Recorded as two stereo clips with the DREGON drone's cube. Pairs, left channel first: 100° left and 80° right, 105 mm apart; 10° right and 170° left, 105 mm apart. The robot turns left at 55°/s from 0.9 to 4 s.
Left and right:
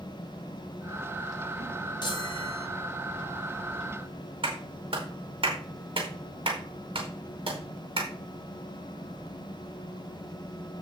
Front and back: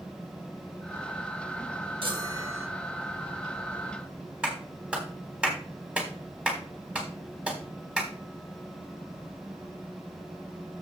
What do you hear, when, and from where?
2.0 s a chime: 140° left, 1.2 m; by 2.7 s 100° left, 1.2 m
4.4 s a clap: 110° right, 3.5 m